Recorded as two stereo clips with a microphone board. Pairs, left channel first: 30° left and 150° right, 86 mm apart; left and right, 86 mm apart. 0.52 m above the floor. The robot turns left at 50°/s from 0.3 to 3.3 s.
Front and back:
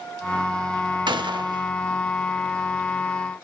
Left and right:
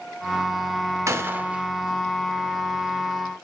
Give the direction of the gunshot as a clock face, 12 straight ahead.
5 o'clock.